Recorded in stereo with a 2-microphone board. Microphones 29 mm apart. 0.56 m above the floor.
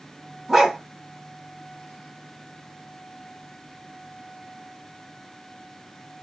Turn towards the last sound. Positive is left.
turn(degrees=-15)  # may be behind; listen again after turning